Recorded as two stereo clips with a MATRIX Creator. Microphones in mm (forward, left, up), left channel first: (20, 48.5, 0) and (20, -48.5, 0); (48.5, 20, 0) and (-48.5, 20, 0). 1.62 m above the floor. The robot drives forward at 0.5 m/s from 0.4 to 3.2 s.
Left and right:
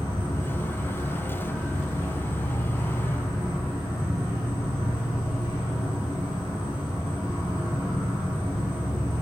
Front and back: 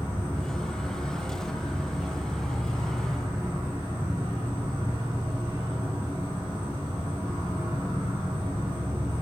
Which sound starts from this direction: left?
An insect, at 0.0 s.